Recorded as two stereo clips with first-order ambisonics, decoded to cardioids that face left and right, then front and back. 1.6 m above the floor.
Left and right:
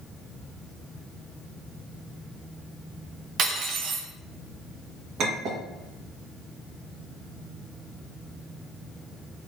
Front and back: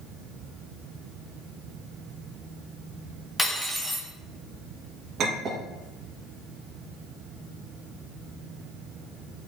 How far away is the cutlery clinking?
About 0.8 m.